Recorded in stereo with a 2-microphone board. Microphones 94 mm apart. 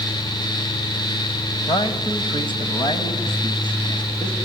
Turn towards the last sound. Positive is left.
turn(degrees=55)  # may be behind; listen again after turning